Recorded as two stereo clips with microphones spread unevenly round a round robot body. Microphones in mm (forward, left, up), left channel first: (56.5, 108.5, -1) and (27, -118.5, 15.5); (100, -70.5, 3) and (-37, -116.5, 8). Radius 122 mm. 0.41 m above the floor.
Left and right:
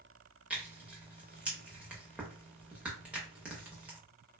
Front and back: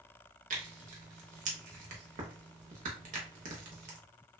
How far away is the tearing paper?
About 0.6 m.